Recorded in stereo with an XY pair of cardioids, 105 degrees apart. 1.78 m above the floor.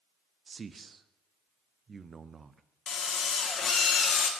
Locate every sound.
0.5 s a man speaking: 35° right, 0.6 m
2.9 s a drill: 55° left, 1.8 m